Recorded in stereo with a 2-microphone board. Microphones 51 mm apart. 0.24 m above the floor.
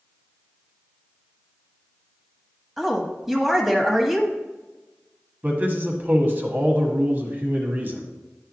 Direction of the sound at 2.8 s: 10° right (ahead or behind).